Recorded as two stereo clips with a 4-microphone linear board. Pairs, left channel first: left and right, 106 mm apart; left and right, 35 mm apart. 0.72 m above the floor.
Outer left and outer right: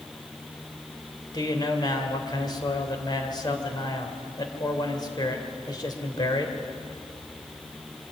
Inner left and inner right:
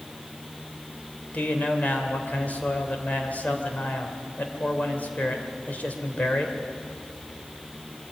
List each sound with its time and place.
1.3 s a man speaking: 45° left (ahead or behind), 2.5 m